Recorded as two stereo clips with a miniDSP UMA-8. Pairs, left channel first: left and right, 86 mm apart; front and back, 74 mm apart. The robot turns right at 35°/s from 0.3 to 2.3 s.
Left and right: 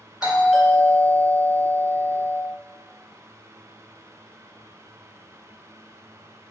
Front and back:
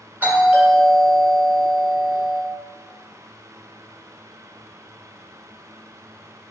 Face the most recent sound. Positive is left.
turn(degrees=-90)